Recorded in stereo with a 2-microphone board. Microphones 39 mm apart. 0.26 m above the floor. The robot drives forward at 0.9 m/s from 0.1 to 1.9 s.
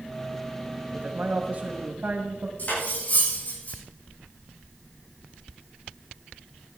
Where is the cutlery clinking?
40° left (ahead or behind), 8 m.